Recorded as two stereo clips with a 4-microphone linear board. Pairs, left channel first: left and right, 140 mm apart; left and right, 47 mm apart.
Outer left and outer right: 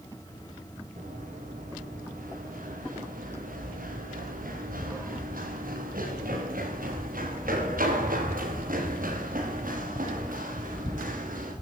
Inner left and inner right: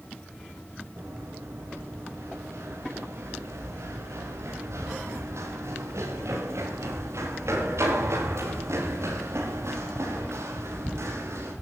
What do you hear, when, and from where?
1.0 s running footsteps: 75° right (ahead or behind), 8.5 m